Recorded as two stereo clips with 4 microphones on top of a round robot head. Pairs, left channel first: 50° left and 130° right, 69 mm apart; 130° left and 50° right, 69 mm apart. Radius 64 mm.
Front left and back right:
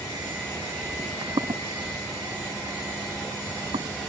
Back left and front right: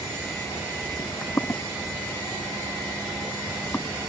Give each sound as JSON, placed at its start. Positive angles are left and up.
{"t": 1.0, "sound": "footsteps", "azimuth_deg": -170}